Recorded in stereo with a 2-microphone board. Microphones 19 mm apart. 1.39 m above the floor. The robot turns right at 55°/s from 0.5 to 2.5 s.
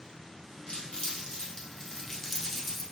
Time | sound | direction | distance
0.7 | crumpling | 65° left (ahead or behind) | 1.0 m